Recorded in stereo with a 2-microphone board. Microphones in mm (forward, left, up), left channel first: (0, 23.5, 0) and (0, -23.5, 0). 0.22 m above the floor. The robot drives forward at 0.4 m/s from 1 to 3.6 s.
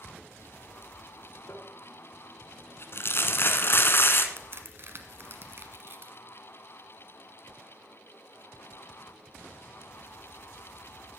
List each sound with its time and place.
1.5 s crumpling: 60° left (ahead or behind), 1.2 m; by 4.3 s 50° left (ahead or behind), 1.3 m
4.4 s a crack: 55° right (ahead or behind), 1.3 m